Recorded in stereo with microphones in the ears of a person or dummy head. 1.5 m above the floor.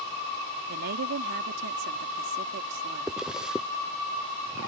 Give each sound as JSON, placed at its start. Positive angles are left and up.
{"t": 0.7, "sound": "a woman speaking", "side_deg": -65}
{"t": 3.1, "sound": "a zipper", "side_deg": -5}